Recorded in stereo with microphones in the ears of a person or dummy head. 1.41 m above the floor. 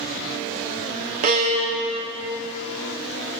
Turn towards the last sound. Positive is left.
turn(degrees=-45)  # may be behind; listen again after turning